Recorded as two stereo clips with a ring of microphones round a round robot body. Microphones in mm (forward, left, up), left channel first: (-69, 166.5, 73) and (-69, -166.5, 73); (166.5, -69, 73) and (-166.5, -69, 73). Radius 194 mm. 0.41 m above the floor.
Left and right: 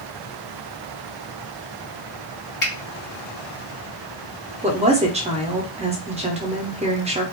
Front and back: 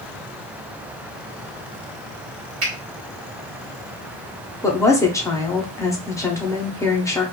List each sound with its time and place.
2.6 s a finger snap: 140° left, 1.4 m
4.6 s a woman speaking: 65° right, 0.8 m